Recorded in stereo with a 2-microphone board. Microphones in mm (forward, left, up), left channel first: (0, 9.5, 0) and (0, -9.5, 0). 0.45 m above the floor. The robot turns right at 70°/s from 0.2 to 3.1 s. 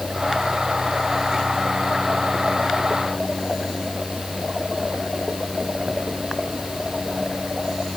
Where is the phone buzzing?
I don't hear a phone buzzing.